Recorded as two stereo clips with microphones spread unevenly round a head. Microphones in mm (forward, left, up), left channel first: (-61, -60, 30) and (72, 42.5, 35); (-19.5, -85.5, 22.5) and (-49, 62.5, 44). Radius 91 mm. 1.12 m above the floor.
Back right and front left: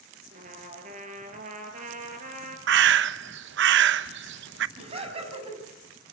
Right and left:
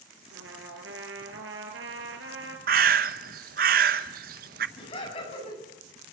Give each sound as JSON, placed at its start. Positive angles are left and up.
{"t": 0.3, "sound": "a trumpet", "azimuth_deg": 85, "distance_m": 4.5}
{"t": 2.7, "sound": "a bird", "azimuth_deg": 60, "distance_m": 0.8}
{"t": 4.8, "sound": "laughter", "azimuth_deg": -20, "distance_m": 8.5}